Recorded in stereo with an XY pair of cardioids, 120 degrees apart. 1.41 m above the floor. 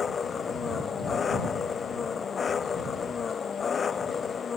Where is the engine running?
35° left.